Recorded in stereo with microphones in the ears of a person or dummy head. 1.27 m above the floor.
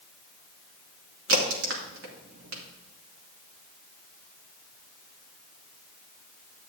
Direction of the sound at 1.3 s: 70° right (ahead or behind).